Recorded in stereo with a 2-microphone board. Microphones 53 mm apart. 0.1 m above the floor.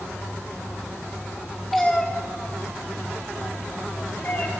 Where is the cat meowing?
Centre (ahead or behind), 1.6 m; by 4.5 s 40° left (ahead or behind), 3.5 m.